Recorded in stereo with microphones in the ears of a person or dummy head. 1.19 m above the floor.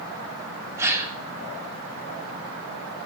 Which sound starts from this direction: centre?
A gasp, at 0.8 s.